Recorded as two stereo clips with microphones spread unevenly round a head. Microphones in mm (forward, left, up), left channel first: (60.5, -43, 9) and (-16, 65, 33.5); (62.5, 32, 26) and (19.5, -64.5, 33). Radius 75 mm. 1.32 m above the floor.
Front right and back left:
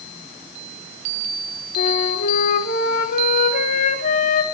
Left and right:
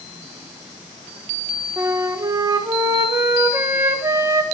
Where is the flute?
50° right, 1.6 m.